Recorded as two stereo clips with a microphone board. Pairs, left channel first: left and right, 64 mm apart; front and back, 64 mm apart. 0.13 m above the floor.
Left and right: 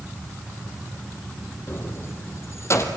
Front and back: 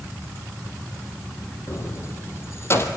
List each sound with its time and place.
1.7 s keys jangling: 40° left, 3.5 m; by 2.9 s 45° left, 3.5 m